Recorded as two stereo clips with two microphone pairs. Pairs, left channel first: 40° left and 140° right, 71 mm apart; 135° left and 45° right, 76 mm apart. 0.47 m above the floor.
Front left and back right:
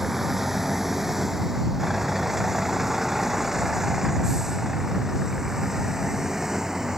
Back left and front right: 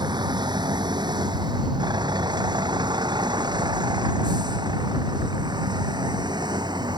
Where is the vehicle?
50° right; by 7.0 s 55° right.